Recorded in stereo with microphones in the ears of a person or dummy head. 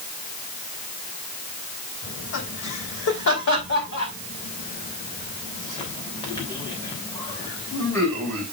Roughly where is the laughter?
Left.